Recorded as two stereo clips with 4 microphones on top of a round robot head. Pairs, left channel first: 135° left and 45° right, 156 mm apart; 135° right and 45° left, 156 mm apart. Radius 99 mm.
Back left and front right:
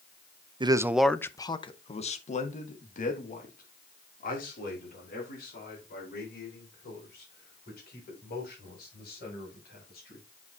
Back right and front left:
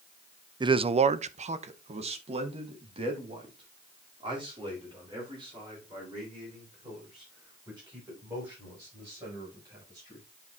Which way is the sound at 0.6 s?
5° right.